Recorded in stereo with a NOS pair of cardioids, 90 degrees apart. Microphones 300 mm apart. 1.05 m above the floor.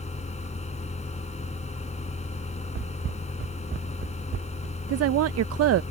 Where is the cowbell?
I don't hear a cowbell.